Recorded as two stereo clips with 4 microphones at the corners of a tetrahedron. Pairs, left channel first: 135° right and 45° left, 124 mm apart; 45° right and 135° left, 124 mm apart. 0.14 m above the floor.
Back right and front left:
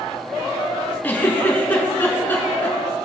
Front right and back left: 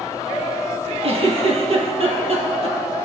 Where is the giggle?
155° left, 1.9 m.